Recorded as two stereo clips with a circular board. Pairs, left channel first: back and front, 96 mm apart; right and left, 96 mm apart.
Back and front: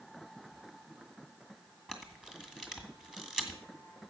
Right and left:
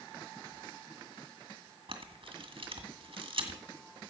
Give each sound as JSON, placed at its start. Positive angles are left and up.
{"t": 1.9, "sound": "a camera shutter", "azimuth_deg": 85, "distance_m": 2.0}